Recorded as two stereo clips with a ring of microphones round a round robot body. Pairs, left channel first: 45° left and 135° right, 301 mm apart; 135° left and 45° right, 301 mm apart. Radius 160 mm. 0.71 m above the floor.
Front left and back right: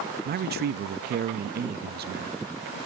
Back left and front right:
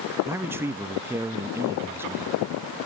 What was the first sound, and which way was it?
A man speaking, 120° right.